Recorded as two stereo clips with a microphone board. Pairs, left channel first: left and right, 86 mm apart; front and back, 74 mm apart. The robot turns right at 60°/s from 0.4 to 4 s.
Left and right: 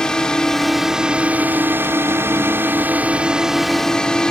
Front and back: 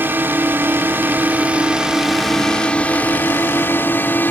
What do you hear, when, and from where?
0.0 s a drone: 160° left; by 4.3 s 20° left